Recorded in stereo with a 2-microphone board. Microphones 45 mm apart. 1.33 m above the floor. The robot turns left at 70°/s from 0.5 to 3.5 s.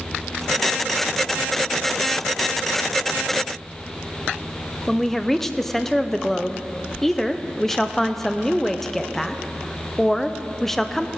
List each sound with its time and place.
4.9 s a woman speaking: 5° left (ahead or behind), 0.6 m